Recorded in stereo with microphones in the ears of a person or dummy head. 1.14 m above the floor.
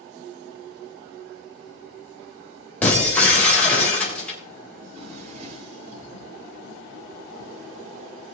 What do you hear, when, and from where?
2.8 s breaking glass: 10° left (ahead or behind), 3.5 m
4.8 s a drawer: 45° right (ahead or behind), 4 m